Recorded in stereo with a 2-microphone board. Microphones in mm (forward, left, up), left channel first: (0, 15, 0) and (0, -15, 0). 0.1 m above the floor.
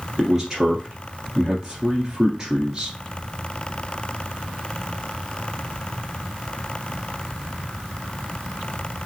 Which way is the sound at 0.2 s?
25° right (ahead or behind).